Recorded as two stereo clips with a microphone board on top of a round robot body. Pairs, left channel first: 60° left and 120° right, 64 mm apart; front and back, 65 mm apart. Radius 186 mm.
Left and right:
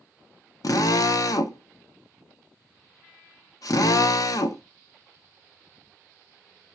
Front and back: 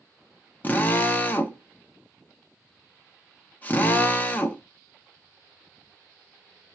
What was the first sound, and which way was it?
A drill, 60° left.